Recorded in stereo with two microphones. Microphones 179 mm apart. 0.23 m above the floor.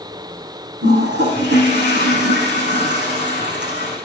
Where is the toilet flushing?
80° right, 8.5 m.